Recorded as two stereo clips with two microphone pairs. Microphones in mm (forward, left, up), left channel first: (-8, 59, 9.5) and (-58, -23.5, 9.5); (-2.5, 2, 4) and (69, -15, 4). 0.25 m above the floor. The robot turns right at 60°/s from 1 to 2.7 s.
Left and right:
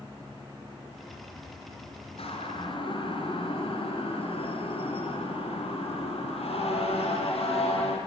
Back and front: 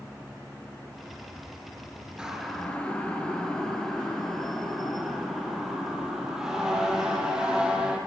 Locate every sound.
2.2 s a siren: 65° left, 6 m